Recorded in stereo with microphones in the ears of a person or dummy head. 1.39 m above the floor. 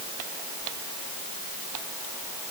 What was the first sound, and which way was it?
Only background noise.